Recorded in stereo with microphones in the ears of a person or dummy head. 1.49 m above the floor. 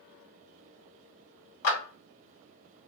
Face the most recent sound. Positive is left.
turn(degrees=70)  # may be behind; listen again after turning